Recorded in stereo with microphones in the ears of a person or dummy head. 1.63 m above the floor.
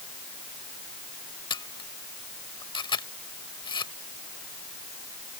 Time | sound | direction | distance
1.5 | a camera shutter | 25° left (ahead or behind) | ?